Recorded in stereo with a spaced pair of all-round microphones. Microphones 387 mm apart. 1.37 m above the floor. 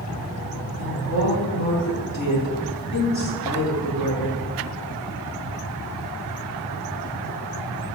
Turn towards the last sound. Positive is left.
turn(degrees=45)  # may be behind; listen again after turning